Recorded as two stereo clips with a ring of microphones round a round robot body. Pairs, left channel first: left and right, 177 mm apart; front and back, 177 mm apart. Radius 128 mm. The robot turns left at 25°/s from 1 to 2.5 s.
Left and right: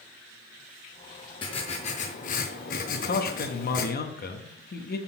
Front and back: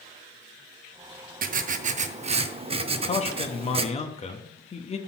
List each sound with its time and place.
1.4 s writing: 155° left, 0.5 m; by 3.9 s 130° left, 0.5 m
2.9 s a man speaking: 55° left, 0.8 m